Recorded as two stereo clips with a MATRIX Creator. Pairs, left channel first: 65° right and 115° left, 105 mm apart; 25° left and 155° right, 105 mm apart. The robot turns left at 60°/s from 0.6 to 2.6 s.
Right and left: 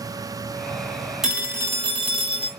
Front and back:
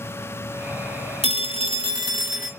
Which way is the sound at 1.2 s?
160° right.